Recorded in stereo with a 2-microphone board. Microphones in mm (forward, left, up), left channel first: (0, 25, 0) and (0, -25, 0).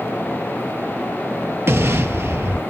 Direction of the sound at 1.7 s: 55° right (ahead or behind).